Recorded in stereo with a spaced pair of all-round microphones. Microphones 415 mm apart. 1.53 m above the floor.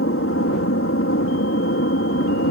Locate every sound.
0.0 s an aircraft: 30° left (ahead or behind)